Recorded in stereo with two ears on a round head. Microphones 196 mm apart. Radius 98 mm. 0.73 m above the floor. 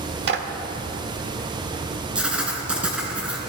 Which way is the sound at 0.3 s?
50° right (ahead or behind).